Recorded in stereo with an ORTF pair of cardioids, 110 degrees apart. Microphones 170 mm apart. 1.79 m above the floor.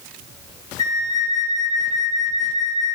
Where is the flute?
25° left, 3.5 m.